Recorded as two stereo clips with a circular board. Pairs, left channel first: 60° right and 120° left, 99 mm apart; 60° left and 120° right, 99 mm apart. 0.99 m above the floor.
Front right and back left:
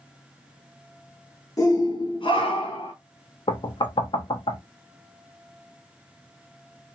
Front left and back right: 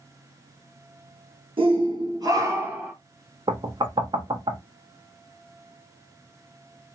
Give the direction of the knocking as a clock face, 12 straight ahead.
3 o'clock.